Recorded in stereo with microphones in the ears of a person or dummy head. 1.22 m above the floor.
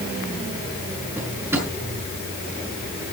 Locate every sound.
1.2 s a drawer: 10° right (ahead or behind), 5.5 m